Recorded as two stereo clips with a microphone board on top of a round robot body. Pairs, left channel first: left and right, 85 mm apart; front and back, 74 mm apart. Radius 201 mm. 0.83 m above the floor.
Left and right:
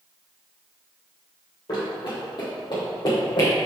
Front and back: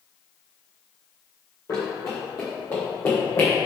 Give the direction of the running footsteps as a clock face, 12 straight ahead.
10 o'clock.